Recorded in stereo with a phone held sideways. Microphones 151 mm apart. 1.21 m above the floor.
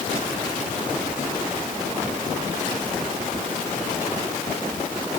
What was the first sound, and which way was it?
Only background noise.